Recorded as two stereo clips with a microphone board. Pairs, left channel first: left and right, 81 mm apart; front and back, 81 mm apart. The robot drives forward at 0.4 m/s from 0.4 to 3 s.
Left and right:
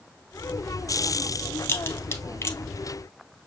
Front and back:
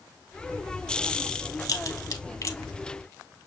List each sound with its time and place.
1.6 s a crack: 30° left, 1.2 m; by 2.6 s 40° left, 0.9 m